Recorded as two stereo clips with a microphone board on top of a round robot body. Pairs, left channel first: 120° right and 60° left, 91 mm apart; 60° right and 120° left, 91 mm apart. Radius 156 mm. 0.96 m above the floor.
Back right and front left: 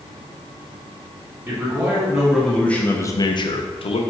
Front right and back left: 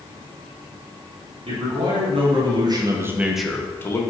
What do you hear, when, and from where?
1.5 s a man speaking: 130° left, 1.4 m; by 4.0 s 115° right, 0.8 m